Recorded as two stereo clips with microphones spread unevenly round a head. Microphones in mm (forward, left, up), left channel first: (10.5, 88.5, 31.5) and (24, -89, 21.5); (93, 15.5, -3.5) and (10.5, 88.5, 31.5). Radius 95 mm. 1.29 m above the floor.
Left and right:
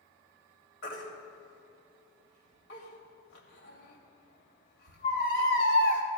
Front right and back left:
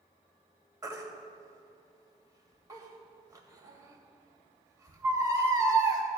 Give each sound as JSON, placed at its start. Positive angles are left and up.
{"t": 0.8, "sound": "a baby crying", "azimuth_deg": 85, "distance_m": 2.5}